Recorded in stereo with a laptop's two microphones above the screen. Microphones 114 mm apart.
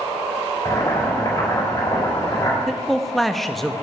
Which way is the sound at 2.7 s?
Centre (ahead or behind).